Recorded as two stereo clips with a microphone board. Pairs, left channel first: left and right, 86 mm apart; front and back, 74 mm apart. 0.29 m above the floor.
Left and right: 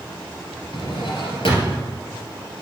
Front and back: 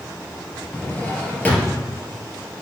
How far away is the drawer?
About 2.5 m.